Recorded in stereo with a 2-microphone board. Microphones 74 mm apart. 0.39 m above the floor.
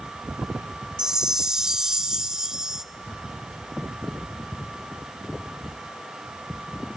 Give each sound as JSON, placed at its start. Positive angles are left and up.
{"t": 1.0, "sound": "a chime", "side_deg": -10, "distance_m": 0.7}